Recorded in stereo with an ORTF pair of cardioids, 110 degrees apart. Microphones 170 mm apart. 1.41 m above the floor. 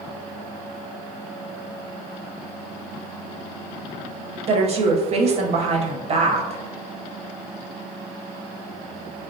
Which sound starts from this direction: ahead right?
A woman speaking, at 4.5 s.